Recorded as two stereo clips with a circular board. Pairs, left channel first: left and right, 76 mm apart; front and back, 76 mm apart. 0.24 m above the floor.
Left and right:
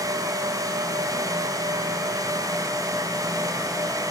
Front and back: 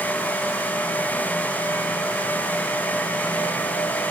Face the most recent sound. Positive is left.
No sound to turn to.